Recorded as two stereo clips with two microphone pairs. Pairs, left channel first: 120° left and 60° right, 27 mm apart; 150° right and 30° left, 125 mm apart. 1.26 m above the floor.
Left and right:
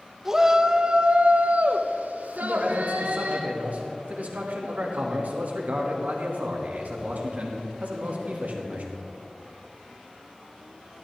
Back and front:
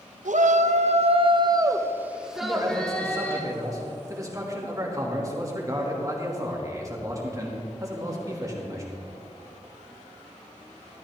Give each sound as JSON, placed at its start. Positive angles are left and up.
{"t": 0.2, "sound": "a shout", "azimuth_deg": 20, "distance_m": 0.9}
{"t": 2.4, "sound": "a man speaking", "azimuth_deg": -35, "distance_m": 2.0}